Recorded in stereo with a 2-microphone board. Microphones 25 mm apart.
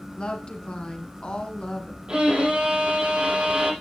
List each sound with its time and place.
0.2 s a woman speaking: 40° left (ahead or behind), 2 m
2.1 s a violin: 40° right (ahead or behind), 6 m